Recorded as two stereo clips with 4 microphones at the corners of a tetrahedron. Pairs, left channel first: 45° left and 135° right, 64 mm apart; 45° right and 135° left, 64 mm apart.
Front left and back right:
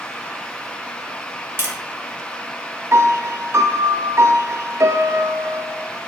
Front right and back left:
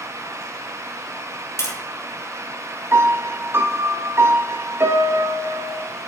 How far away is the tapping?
About 2.5 m.